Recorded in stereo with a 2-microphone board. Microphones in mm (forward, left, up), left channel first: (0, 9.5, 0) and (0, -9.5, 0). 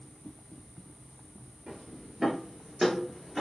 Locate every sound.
1.7 s footsteps: 40° right (ahead or behind), 2 m; by 3.4 s 15° right (ahead or behind), 1.7 m